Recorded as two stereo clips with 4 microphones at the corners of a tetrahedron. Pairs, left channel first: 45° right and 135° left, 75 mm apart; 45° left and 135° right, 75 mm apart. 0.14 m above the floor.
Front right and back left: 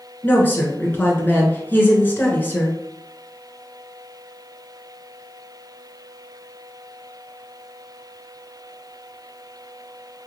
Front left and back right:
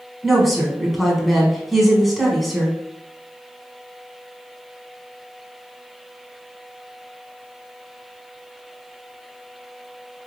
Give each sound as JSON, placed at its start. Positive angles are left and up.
{"t": 0.2, "sound": "a woman speaking", "azimuth_deg": -45, "distance_m": 1.1}